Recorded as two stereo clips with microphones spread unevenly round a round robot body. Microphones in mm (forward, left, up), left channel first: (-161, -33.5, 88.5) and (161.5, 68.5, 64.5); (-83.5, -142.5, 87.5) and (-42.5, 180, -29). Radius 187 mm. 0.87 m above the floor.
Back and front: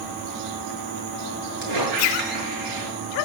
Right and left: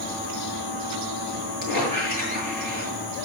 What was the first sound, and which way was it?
A squeak, 40° left.